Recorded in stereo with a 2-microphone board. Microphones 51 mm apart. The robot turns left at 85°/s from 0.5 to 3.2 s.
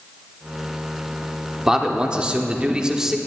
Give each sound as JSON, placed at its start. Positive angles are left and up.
{"t": 1.7, "sound": "a man speaking", "side_deg": -10, "distance_m": 0.8}